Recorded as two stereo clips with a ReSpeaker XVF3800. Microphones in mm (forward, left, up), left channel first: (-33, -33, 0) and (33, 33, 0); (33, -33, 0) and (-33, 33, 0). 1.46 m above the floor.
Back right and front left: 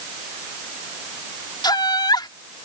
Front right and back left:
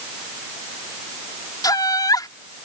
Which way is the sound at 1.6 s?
95° right.